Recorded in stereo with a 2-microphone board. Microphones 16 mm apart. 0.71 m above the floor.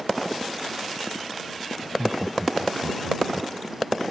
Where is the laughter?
10° left (ahead or behind); by 3.5 s 5° right (ahead or behind).